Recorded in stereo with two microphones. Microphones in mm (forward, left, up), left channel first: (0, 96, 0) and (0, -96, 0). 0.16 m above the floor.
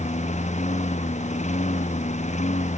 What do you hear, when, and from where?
0.0 s a lawn mower: 35° left (ahead or behind)